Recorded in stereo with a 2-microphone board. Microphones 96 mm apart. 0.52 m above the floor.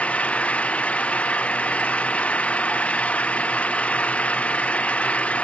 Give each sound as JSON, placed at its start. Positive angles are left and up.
{"t": 0.0, "sound": "an engine running", "side_deg": 15}